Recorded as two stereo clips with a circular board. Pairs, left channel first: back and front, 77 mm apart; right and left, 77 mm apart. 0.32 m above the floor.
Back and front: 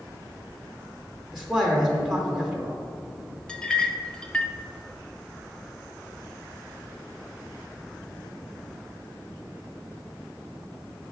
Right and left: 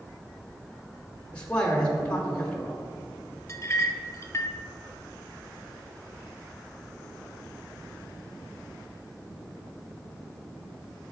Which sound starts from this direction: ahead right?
A man speaking, at 1.3 s.